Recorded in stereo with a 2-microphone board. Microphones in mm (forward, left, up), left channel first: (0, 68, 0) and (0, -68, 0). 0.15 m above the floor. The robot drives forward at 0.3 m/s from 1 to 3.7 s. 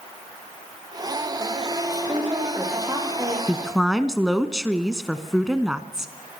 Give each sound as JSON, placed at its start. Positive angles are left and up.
{"t": 1.9, "sound": "a woman speaking", "side_deg": -25, "distance_m": 6.5}
{"t": 3.5, "sound": "a woman speaking", "side_deg": -5, "distance_m": 1.1}